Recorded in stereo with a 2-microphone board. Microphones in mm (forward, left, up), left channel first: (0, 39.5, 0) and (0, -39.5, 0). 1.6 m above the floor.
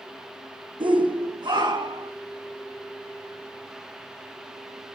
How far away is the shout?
About 1.2 m.